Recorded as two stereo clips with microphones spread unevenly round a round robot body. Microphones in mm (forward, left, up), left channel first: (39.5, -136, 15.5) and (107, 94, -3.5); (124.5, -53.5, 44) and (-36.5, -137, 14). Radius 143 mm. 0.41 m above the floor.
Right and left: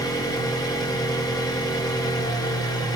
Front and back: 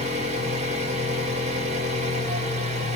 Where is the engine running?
175° left, 0.8 m.